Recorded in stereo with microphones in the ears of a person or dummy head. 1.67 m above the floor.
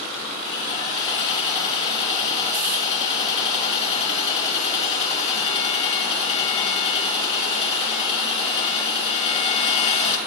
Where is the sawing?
35° left (ahead or behind), 2.5 m.